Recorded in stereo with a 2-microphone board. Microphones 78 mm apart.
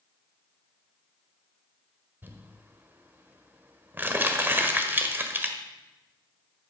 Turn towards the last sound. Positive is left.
turn(degrees=-25)  # may be behind; listen again after turning